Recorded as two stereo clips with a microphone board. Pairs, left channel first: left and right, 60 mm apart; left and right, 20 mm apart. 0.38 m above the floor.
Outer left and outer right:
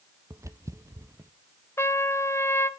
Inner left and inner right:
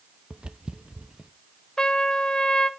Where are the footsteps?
60° right (ahead or behind), 0.6 m.